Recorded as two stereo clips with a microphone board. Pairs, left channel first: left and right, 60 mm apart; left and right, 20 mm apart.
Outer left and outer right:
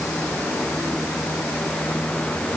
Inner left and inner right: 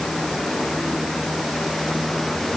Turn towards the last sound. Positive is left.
No sound to turn to.